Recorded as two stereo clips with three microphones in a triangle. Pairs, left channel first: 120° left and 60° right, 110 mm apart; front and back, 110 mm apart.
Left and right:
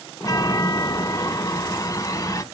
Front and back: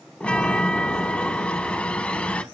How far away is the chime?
About 1.0 m.